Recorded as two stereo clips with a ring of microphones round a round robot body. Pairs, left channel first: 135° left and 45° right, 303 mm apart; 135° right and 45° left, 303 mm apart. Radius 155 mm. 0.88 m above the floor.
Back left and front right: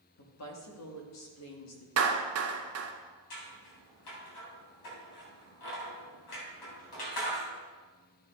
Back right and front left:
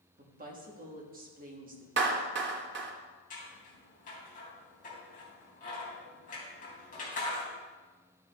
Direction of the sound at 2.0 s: 5° right.